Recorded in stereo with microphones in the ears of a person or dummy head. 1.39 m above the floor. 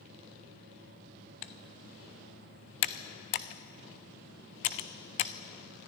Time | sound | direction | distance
1.4 | typing on a keyboard | 40° left (ahead or behind) | 0.6 m